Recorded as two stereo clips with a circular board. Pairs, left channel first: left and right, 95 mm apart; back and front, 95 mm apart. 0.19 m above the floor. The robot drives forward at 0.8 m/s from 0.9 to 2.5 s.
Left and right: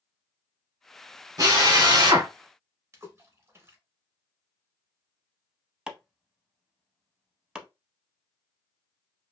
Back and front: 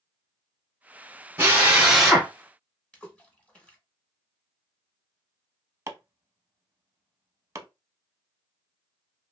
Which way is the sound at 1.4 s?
55° right.